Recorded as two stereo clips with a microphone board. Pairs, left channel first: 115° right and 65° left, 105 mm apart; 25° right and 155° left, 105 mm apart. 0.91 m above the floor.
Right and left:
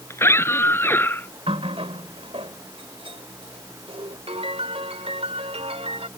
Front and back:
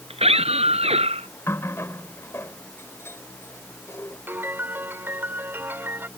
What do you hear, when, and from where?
0.1 s a scream: straight behind; by 1.3 s 175° left
1.5 s a running tap: 45° left
4.3 s a piano: 85° left